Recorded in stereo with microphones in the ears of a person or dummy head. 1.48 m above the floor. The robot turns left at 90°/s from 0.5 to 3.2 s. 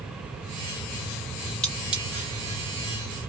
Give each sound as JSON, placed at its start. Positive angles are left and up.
{"t": 1.6, "sound": "cutlery clinking", "side_deg": 5, "distance_m": 0.5}